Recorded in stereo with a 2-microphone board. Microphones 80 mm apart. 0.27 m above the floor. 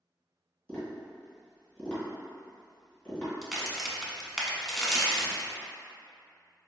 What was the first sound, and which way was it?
Tapping, 25° left (ahead or behind).